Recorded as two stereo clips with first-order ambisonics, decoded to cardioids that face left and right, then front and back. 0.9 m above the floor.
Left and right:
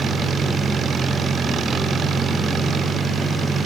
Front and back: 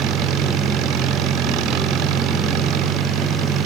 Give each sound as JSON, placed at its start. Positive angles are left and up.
{"t": 0.0, "sound": "an engine running", "azimuth_deg": -155}